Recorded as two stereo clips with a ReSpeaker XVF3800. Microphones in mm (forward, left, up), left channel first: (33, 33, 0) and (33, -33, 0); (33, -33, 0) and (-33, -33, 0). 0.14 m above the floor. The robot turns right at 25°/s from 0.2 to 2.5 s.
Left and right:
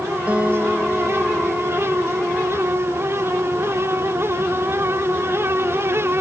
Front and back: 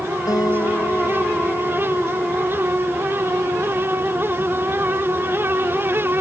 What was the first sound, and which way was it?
A guitar, 20° right.